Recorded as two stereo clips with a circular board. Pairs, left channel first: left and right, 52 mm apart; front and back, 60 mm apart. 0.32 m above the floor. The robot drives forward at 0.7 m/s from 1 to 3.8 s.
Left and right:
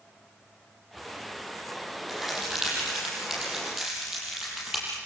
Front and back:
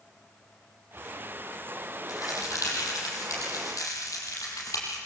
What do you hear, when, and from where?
2.1 s a crack: 5° right, 8 m